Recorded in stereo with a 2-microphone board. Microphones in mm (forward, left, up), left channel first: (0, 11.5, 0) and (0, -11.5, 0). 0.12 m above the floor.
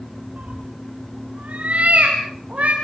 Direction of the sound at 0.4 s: 80° right.